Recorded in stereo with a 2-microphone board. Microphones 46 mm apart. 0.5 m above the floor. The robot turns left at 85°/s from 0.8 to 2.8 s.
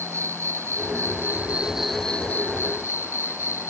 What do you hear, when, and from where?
0.0 s an insect: 90° right; by 3.7 s 100° left